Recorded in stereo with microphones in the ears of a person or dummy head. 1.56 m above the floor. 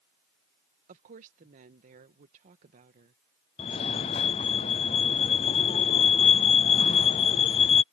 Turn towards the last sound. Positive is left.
turn(degrees=25)  # may be behind; listen again after turning